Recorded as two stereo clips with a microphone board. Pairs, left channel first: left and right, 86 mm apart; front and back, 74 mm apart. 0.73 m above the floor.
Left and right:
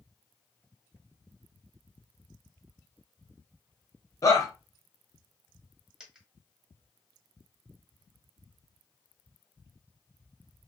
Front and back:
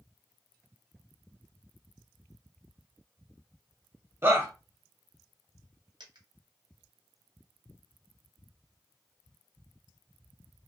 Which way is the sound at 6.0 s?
170° right.